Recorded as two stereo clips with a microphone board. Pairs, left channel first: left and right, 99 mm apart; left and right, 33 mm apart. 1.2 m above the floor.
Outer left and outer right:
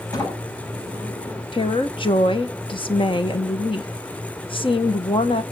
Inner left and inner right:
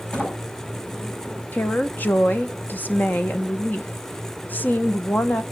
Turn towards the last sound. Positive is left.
turn(degrees=60)  # may be behind; listen again after turning